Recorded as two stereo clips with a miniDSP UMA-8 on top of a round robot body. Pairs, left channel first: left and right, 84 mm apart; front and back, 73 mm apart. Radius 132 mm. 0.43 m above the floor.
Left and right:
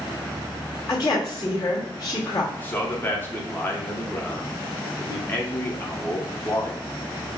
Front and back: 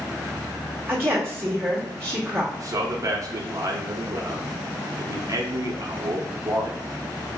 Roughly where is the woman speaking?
Behind left.